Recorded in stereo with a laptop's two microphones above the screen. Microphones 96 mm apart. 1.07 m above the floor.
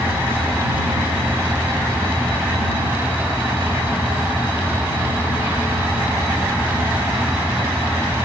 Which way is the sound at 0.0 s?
20° right (ahead or behind).